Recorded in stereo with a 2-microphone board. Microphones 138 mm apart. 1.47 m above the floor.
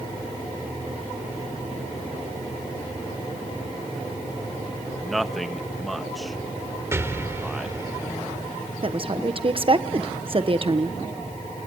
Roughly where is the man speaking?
Centre.